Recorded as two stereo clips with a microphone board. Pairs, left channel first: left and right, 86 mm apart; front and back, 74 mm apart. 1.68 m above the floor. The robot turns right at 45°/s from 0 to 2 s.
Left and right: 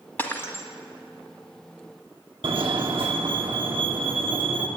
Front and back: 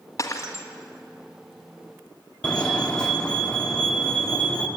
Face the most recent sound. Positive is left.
turn(degrees=-80)